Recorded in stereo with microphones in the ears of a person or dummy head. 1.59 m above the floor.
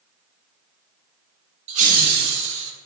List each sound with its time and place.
1.7 s laughter: 40° right (ahead or behind), 1.1 m; by 2.7 s 75° right (ahead or behind), 1.4 m